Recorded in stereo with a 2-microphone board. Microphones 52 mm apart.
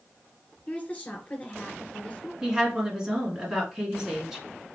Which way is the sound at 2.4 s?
15° right (ahead or behind).